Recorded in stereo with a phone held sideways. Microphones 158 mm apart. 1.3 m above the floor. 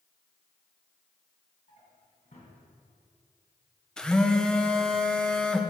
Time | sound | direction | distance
1.7 | a drawer | 55° left (ahead or behind) | 2.5 m
4.0 | a phone buzzing | 5° left (ahead or behind) | 0.6 m